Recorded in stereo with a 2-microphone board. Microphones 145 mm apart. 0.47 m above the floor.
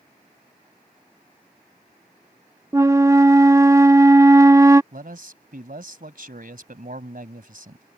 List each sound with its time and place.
2.7 s a flute: 20° right (ahead or behind)
4.9 s a man speaking: 70° right (ahead or behind)